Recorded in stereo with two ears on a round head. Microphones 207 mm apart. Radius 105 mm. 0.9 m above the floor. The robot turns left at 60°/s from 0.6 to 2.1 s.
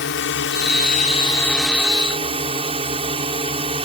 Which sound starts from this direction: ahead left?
A drone, at 0.0 s.